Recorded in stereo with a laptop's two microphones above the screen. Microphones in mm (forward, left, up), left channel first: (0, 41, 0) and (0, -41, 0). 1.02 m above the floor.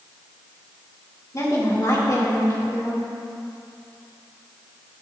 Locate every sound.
1.3 s a woman speaking: 45° left (ahead or behind), 3 m